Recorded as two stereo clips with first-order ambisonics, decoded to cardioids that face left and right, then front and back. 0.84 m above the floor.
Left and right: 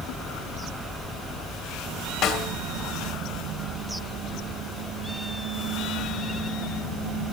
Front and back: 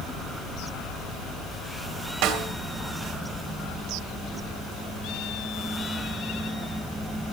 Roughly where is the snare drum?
Behind left.